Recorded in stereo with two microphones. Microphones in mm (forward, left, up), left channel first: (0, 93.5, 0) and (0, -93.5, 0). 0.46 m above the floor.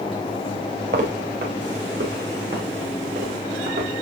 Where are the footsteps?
65° right (ahead or behind), 5.5 m; by 3.9 s 75° right (ahead or behind), 6.5 m.